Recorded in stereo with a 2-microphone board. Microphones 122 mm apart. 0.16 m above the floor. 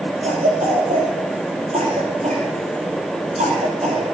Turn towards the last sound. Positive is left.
turn(degrees=-75)  # may be behind; listen again after turning